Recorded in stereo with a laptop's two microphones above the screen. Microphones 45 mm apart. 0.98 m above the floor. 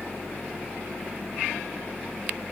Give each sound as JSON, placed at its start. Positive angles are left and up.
{"t": 0.0, "sound": "a fan", "side_deg": 35}